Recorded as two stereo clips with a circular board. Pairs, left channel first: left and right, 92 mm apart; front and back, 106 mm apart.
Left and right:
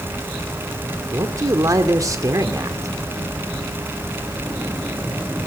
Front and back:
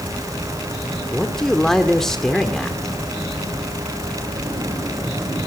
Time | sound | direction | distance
1.1 | a man speaking | 85° right | 1.7 m